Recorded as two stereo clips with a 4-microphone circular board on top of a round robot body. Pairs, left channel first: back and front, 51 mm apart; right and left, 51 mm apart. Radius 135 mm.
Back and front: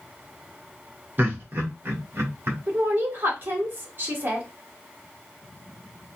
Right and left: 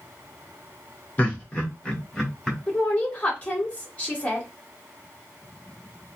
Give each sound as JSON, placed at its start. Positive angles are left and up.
{"t": 1.2, "sound": "laughter", "azimuth_deg": -35, "distance_m": 1.9}
{"t": 2.7, "sound": "a woman speaking", "azimuth_deg": -35, "distance_m": 2.0}